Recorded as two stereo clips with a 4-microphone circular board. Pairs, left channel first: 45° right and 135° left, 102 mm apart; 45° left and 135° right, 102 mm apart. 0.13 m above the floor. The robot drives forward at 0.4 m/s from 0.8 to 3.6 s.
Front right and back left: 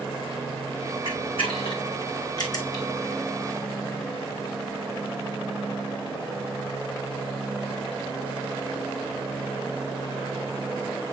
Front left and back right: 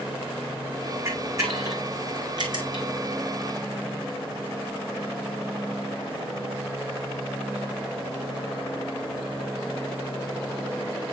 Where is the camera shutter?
70° right, 1.5 m; by 2.8 s 100° right, 1.5 m.